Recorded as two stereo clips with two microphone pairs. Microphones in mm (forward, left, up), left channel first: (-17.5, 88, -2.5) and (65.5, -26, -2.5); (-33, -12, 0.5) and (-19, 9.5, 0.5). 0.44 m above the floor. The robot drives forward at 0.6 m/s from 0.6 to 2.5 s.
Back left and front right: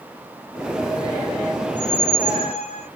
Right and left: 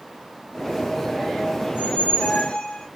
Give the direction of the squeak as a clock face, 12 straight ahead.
4 o'clock.